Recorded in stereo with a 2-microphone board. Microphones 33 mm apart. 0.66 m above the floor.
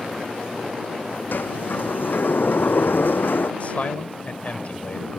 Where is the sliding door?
80° left.